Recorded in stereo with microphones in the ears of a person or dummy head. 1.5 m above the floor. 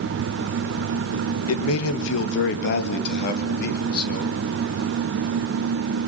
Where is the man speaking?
85° left, 1.6 m; by 4.4 s 55° left (ahead or behind), 4 m.